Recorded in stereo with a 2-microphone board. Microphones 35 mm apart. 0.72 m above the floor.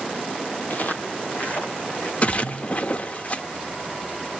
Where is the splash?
40° left (ahead or behind), 0.8 m.